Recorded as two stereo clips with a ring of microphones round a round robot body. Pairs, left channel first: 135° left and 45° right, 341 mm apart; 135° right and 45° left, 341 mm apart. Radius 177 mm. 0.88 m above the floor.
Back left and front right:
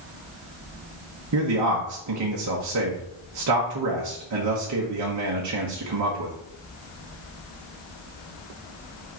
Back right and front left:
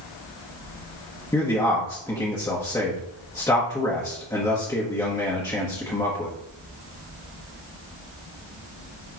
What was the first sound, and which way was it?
A man speaking, 55° right.